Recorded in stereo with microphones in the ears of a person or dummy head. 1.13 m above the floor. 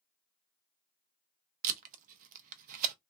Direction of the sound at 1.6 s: 50° right (ahead or behind).